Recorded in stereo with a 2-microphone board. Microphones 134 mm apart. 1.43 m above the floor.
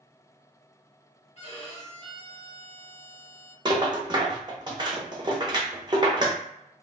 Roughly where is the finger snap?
I don't hear a finger snap.